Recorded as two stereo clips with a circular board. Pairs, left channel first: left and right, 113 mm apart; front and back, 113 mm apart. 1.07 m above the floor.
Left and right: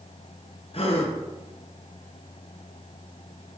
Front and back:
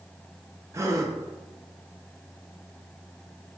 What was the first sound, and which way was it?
A gasp, 120° left.